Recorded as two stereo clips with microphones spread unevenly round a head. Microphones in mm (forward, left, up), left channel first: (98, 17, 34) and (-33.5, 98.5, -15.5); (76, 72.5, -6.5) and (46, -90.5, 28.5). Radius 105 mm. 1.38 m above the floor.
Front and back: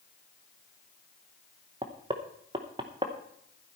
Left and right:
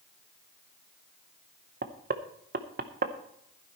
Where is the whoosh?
I don't hear a whoosh.